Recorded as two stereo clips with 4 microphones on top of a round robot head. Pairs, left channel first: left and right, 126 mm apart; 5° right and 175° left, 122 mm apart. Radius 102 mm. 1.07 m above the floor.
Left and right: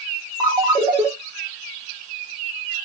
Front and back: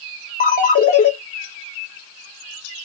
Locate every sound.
0.4 s a ringtone: 20° right, 0.9 m